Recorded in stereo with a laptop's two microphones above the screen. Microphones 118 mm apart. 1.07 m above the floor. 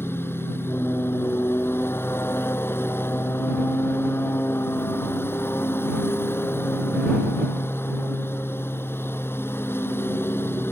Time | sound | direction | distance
0.0 | a lawn mower | 20° left (ahead or behind) | ?